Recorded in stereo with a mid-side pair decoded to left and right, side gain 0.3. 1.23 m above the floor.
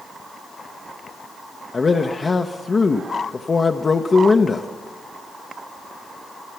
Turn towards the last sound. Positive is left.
turn(degrees=50)